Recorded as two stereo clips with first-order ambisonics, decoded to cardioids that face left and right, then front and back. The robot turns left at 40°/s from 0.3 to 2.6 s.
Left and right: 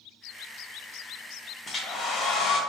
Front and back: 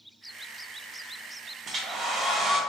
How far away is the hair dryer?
About 0.6 m.